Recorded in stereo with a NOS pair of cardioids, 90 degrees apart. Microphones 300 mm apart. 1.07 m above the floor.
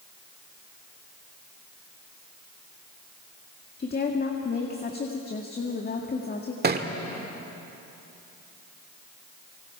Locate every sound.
3.8 s a woman speaking: 30° left, 1.9 m
6.6 s a thud: 35° right, 1.7 m